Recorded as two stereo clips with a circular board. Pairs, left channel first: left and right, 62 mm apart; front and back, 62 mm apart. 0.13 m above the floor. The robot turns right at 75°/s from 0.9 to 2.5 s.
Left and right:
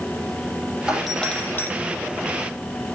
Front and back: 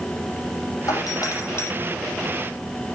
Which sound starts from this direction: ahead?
A doorbell, at 0.9 s.